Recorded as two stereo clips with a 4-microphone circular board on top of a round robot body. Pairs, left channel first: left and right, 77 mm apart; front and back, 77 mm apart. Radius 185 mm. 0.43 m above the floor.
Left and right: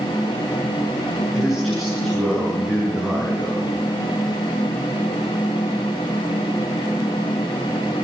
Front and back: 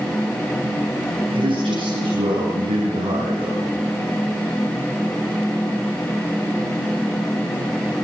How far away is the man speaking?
About 8 m.